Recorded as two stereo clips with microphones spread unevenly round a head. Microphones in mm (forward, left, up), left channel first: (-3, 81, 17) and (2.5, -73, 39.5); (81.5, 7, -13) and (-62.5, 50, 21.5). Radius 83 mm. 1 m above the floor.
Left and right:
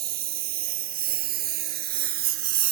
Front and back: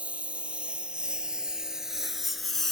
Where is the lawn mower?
115° right; by 2.7 s 110° right.